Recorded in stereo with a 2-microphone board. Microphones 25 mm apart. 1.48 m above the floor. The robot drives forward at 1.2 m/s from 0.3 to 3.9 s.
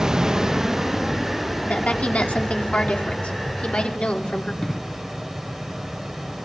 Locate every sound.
0.0 s running water: 25° right (ahead or behind), 0.8 m; by 6.5 s 5° right (ahead or behind), 5 m
1.6 s a woman speaking: 85° left, 4.5 m; by 4.5 s 65° left (ahead or behind), 5 m
4.6 s an explosion: 30° left (ahead or behind), 3 m